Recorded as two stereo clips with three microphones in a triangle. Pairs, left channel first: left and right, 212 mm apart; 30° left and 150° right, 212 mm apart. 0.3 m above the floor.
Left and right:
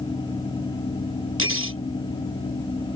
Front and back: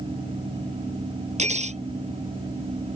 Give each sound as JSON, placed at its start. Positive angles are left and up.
{"t": 1.4, "sound": "cutlery clinking", "azimuth_deg": -90}